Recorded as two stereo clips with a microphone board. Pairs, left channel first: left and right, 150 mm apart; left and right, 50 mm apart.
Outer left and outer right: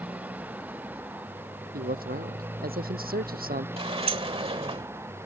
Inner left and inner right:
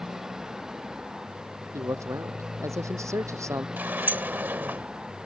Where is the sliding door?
40° right (ahead or behind).